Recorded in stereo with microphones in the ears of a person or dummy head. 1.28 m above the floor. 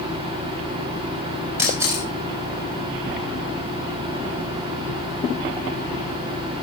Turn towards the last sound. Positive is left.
turn(degrees=-10)  # may be behind; listen again after turning